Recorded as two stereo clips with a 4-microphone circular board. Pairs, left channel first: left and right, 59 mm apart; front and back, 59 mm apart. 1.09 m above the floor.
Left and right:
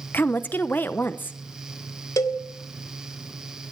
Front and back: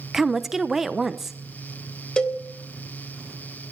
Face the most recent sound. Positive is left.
turn(degrees=75)